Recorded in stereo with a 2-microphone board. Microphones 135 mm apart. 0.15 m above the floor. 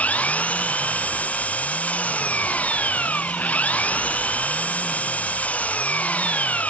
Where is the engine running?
10° left (ahead or behind).